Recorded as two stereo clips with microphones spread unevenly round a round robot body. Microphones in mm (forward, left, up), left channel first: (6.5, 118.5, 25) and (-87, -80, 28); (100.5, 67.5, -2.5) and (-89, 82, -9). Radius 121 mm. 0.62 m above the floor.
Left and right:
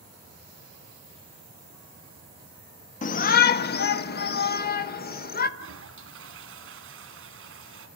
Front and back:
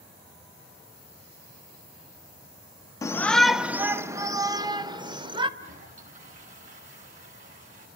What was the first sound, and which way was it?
A shout, 60° left.